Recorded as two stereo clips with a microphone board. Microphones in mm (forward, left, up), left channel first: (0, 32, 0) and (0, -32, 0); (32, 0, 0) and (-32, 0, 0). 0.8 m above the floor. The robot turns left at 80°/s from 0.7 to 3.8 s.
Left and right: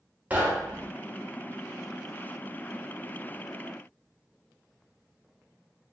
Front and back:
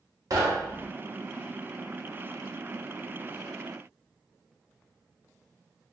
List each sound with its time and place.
0.3 s knocking: 155° right, 0.7 m; by 0.9 s 170° right, 0.7 m